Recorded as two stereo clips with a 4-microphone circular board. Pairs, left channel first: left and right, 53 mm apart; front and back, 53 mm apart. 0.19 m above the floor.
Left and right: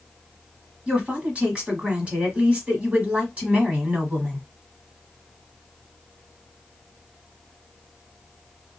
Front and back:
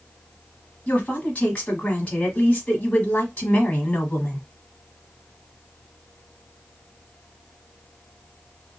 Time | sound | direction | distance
0.9 | a woman speaking | 45° right | 1.1 m